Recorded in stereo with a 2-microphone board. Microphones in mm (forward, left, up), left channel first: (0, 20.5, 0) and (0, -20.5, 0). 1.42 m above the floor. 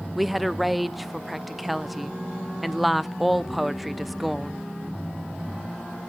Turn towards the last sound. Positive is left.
turn(degrees=0)  # may be behind; listen again after turning